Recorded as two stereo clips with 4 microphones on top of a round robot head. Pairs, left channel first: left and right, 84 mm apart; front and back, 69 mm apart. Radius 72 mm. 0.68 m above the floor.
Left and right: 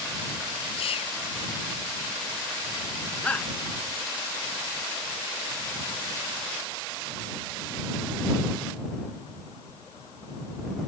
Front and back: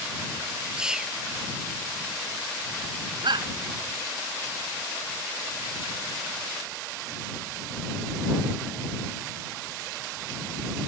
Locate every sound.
0.8 s whispering: 105° left
3.2 s a shout: 170° left